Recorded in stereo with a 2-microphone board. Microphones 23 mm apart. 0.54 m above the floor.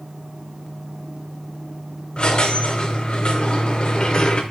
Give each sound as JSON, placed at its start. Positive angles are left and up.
{"t": 2.2, "sound": "a squeak", "side_deg": 45, "distance_m": 0.5}